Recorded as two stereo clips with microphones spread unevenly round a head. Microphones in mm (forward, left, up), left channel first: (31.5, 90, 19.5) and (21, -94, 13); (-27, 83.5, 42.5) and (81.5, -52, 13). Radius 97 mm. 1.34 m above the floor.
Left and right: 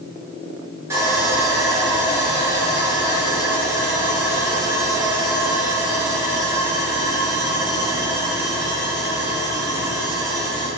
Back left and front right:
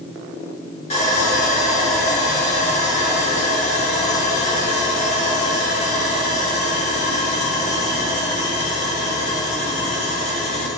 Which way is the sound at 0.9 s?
170° right.